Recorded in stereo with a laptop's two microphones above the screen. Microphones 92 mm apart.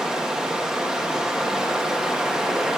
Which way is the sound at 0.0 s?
10° right (ahead or behind).